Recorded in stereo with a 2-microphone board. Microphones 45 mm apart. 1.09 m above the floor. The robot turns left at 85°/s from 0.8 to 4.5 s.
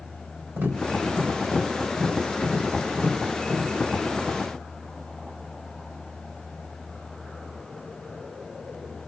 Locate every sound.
0.6 s tapping: 80° right, 4 m; by 3.7 s 15° left (ahead or behind), 4 m